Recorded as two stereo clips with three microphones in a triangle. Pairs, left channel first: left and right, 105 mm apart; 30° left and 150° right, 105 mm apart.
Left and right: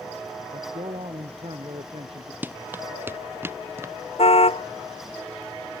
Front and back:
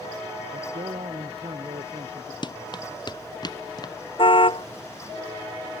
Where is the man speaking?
120° right.